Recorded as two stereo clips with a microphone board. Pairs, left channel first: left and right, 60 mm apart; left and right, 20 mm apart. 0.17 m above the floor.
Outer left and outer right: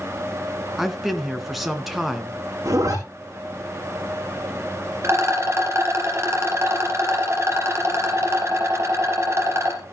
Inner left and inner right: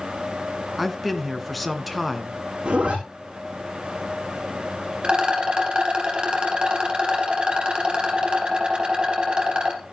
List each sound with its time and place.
0.8 s a man speaking: 5° right (ahead or behind), 2 m
2.6 s a zipper: 70° right (ahead or behind), 5.5 m
5.0 s a rattle: 50° right (ahead or behind), 3.5 m